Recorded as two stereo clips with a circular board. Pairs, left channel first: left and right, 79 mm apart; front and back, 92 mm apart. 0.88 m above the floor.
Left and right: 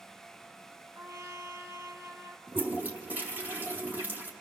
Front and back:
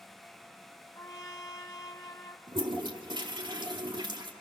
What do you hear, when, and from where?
0.9 s a trumpet: 50° right, 2 m
2.5 s a toilet flushing: 155° right, 2.5 m